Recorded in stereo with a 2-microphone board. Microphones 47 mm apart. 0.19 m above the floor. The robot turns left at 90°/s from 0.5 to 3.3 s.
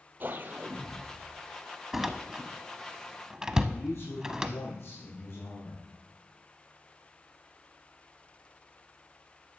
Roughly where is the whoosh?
Ahead right.